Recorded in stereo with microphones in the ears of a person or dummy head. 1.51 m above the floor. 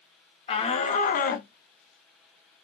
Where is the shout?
30° left (ahead or behind), 1.0 m; by 2.6 s 35° left (ahead or behind), 0.6 m.